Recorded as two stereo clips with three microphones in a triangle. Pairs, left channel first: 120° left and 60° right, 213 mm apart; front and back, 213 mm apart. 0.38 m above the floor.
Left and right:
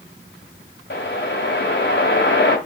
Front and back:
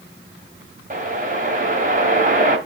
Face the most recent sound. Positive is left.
turn(degrees=135)